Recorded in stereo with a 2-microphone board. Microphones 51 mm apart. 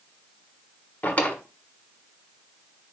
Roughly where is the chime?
No chime in this recording.